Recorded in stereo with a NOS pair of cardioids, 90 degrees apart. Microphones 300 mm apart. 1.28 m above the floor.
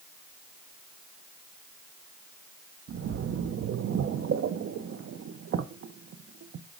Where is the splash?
45° right, 0.8 m.